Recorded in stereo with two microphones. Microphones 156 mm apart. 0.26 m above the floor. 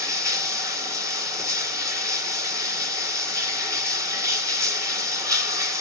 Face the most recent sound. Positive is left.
turn(degrees=-20)  # may be behind; listen again after turning